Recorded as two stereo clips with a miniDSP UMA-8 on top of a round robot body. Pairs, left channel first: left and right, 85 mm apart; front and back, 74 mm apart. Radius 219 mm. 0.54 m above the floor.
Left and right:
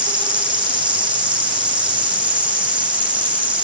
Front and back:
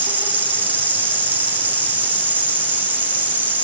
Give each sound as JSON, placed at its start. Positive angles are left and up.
{"t": 0.0, "sound": "an insect", "azimuth_deg": -115, "distance_m": 10.0}